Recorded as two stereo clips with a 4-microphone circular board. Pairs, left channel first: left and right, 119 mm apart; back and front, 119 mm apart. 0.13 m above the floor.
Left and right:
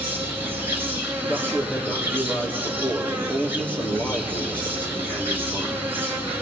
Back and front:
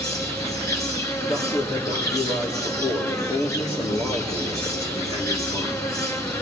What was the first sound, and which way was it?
An insect, 145° right.